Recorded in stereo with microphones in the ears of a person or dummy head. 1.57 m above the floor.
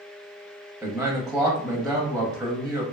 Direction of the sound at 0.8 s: 5° right (ahead or behind).